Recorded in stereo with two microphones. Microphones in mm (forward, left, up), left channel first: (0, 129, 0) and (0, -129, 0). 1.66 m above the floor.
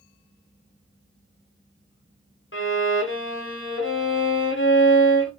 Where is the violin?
55° left (ahead or behind), 0.8 m.